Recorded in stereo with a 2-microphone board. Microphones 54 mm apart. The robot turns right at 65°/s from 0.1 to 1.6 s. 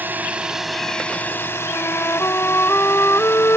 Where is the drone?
40° right; by 3.6 s 60° left.